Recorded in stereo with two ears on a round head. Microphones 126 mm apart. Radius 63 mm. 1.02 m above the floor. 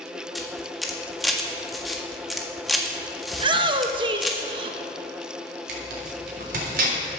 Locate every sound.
0.3 s a camera shutter: centre (ahead or behind), 1.6 m
3.3 s a shout: 35° right (ahead or behind), 0.8 m
5.7 s tearing paper: 70° right (ahead or behind), 3.5 m